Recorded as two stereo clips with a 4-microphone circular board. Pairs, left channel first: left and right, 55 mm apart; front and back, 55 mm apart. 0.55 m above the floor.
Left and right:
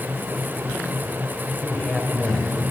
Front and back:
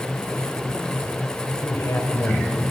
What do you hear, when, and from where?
1.6 s a man speaking: 20° left, 3 m